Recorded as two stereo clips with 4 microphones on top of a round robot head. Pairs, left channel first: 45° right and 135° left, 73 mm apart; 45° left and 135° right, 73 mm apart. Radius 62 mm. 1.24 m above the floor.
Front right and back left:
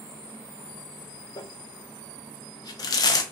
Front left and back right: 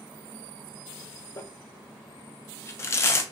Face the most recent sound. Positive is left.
turn(degrees=-10)